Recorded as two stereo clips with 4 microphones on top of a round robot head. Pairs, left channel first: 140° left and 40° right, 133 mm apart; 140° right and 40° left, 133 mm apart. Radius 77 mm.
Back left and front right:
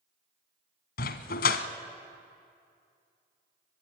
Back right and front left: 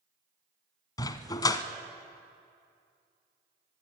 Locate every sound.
1.0 s a dog barking: 155° left, 0.9 m